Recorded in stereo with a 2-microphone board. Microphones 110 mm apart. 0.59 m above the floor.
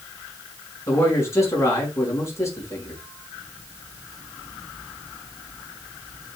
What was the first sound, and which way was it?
A man speaking, 30° left (ahead or behind).